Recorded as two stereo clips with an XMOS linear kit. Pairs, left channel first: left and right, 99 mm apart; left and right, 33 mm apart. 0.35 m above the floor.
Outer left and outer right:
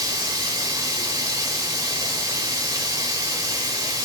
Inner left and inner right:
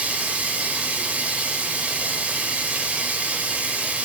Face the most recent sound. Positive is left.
turn(degrees=-40)  # may be behind; listen again after turning